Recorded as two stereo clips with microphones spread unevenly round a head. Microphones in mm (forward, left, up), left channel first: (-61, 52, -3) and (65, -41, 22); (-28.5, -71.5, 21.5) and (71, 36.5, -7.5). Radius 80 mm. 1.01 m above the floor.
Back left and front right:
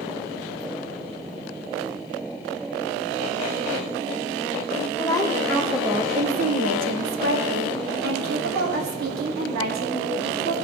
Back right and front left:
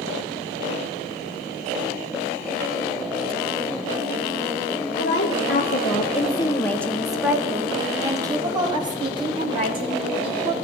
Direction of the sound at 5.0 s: 145° right.